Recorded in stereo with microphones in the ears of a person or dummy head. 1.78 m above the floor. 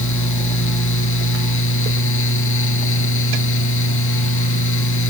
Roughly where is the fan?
Left.